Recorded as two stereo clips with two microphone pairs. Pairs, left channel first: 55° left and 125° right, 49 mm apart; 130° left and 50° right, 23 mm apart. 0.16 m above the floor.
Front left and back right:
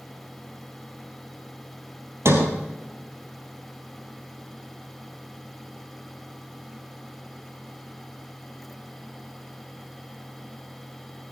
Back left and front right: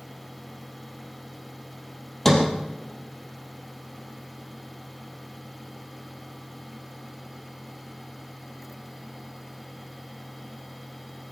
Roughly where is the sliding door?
Behind right.